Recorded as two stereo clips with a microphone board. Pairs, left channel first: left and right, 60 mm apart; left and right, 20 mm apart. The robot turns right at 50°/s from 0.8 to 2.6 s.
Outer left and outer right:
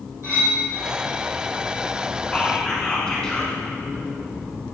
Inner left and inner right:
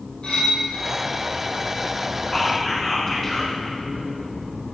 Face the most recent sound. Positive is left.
turn(degrees=15)  # may be behind; listen again after turning